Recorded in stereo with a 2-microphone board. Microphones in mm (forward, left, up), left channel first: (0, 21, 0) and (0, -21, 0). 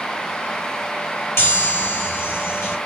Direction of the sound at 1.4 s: 80° left.